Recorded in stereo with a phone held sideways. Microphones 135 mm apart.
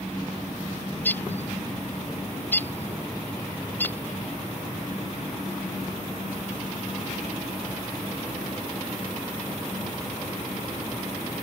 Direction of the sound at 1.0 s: 15° left (ahead or behind).